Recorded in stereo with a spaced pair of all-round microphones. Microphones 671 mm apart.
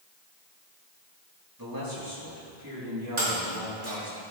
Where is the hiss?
I don't hear a hiss.